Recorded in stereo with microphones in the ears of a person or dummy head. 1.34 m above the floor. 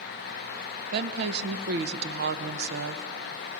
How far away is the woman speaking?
About 0.8 m.